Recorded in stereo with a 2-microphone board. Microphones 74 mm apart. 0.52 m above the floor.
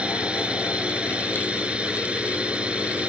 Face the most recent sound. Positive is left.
turn(degrees=-15)  # may be behind; listen again after turning